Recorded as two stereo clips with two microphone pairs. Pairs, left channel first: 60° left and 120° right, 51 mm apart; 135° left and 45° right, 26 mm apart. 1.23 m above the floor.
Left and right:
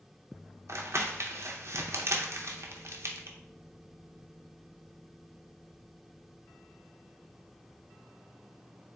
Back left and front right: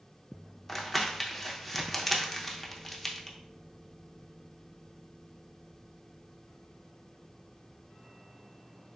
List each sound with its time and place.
0.7 s crumpling: 135° right, 0.6 m